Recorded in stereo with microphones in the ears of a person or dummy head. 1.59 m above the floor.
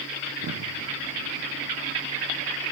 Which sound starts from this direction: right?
An explosion, at 0.3 s.